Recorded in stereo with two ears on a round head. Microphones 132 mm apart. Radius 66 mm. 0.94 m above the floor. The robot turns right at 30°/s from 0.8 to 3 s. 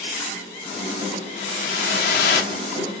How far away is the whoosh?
About 1.3 m.